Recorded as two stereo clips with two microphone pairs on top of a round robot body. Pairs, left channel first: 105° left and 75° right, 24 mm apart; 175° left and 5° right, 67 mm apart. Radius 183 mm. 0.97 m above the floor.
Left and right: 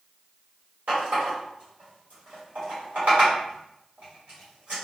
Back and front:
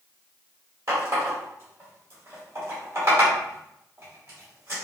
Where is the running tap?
50° right, 1.4 m.